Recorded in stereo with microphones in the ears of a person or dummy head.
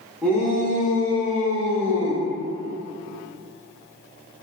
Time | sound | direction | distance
0.2 | a shout | 5° left (ahead or behind) | 1.2 m